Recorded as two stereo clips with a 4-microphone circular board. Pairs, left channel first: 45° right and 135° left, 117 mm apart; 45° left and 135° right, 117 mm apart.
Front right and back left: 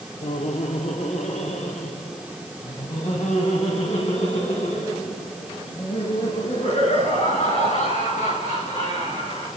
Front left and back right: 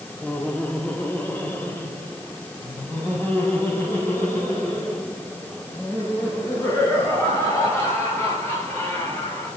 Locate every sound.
0.2 s laughter: 30° right, 1.3 m; by 9.5 s 25° right, 12.5 m